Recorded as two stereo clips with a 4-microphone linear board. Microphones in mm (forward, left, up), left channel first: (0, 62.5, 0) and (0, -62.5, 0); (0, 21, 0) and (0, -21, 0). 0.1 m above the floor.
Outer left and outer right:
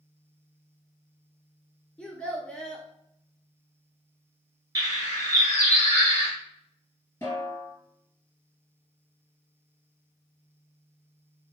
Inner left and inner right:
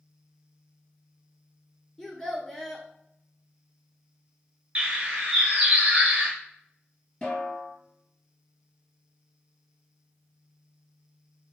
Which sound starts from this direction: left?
A snare drum, at 7.2 s.